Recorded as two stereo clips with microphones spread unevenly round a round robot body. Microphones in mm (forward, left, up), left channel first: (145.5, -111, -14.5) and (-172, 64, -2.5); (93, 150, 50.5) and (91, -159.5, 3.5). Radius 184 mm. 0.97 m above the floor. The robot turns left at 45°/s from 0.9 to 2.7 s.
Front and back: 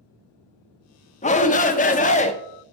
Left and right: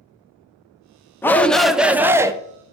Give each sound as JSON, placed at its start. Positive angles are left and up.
{"t": 1.2, "sound": "a shout", "azimuth_deg": -5, "distance_m": 0.5}